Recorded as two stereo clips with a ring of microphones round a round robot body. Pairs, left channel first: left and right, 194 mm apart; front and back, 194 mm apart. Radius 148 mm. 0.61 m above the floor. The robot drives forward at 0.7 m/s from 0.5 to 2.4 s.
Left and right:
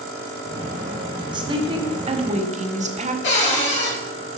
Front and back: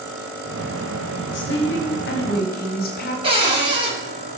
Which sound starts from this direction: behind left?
A cupboard door, at 3.2 s.